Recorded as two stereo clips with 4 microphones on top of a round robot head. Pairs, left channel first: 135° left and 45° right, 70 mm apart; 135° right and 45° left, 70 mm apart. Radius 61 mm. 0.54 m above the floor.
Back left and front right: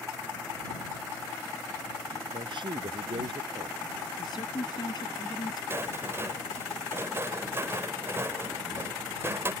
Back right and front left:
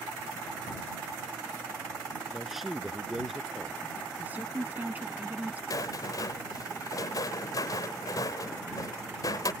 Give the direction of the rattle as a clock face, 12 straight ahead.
3 o'clock.